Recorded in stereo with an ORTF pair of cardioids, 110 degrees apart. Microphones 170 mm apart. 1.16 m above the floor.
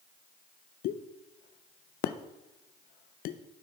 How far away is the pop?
About 0.5 m.